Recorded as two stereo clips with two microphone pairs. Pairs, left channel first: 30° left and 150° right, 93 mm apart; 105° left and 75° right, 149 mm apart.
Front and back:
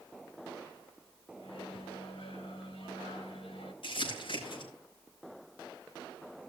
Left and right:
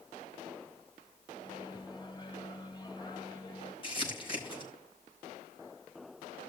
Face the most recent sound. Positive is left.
turn(degrees=55)